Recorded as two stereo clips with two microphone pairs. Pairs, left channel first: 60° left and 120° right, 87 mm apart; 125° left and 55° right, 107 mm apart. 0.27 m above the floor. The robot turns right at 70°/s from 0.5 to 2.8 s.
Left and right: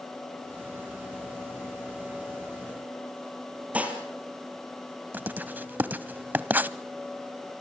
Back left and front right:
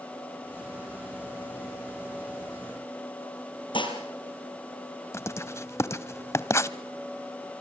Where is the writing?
175° left, 0.8 m.